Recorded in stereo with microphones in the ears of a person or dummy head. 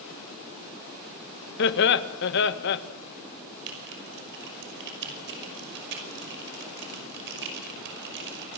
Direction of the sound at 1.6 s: 60° left (ahead or behind).